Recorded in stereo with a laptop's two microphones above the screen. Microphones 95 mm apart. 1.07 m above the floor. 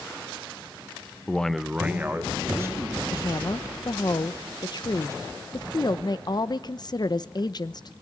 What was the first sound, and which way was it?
A man speaking, 15° left (ahead or behind).